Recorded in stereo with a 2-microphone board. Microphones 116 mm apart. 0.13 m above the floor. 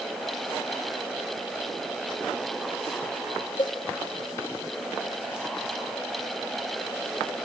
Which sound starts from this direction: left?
A cowbell, at 3.6 s.